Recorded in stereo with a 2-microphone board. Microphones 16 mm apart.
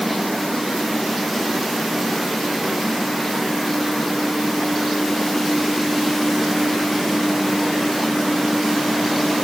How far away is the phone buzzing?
No phone buzzing in this recording.